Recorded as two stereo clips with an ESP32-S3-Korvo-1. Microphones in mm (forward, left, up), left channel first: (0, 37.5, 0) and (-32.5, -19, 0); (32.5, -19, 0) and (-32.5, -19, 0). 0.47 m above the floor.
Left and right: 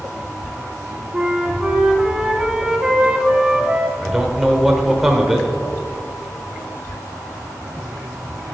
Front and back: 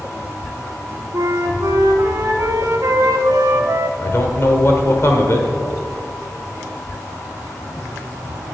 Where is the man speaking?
35° right, 1.1 m.